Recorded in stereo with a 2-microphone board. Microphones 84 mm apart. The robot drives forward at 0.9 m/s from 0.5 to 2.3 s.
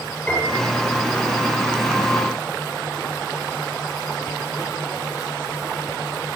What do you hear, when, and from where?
0.3 s a piano: 15° left (ahead or behind), 9.5 m